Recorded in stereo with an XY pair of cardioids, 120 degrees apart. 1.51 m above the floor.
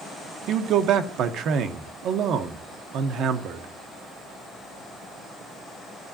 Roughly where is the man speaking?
Right.